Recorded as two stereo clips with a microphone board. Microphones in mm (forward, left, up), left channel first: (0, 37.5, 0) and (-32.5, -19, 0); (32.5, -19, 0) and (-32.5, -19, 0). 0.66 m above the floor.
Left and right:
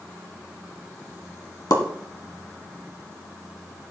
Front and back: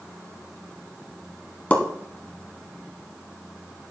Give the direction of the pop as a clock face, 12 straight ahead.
10 o'clock.